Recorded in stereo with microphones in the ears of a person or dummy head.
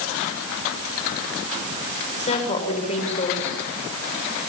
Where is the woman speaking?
30° left (ahead or behind), 5.5 m.